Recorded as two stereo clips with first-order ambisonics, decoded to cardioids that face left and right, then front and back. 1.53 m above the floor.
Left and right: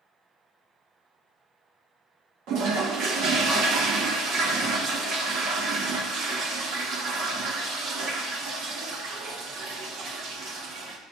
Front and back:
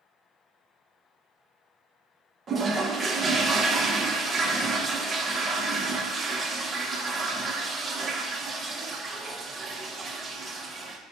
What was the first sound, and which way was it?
A toilet flushing, 115° right.